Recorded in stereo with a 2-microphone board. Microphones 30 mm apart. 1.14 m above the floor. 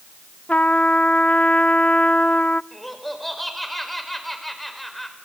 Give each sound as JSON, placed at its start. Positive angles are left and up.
{"t": 0.5, "sound": "a trumpet", "side_deg": 50, "distance_m": 0.5}
{"t": 2.7, "sound": "laughter", "side_deg": 5, "distance_m": 4.5}